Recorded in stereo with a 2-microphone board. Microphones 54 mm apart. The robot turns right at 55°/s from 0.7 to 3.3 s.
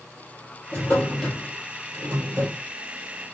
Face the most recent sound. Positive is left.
turn(degrees=-80)